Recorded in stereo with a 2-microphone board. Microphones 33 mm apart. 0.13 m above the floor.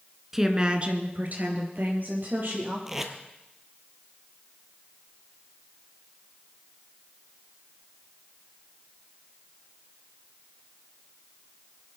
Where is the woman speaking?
10° right (ahead or behind), 1.2 m; by 2.8 s 65° right (ahead or behind), 3.5 m.